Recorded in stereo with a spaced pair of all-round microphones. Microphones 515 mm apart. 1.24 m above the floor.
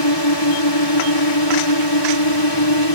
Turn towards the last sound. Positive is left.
turn(degrees=55)  # may be behind; listen again after turning